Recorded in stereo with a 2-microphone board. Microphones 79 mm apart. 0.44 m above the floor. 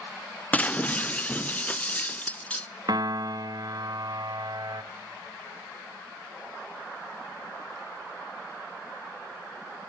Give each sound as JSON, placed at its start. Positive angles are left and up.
{"t": 0.5, "sound": "breaking glass", "side_deg": 20, "distance_m": 0.7}
{"t": 2.9, "sound": "a piano", "side_deg": -60, "distance_m": 1.2}